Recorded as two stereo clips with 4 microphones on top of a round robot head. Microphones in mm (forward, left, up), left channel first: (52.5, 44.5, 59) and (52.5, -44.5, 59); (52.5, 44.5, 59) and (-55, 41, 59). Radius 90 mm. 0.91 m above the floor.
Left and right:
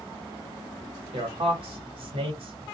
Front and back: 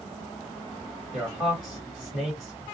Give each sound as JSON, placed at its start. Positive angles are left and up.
{"t": 1.1, "sound": "a man speaking", "azimuth_deg": -85, "distance_m": 1.1}